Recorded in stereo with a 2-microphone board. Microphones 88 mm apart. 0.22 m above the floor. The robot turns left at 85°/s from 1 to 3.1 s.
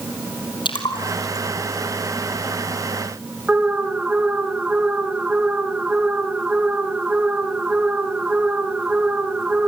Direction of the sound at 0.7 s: 60° left (ahead or behind).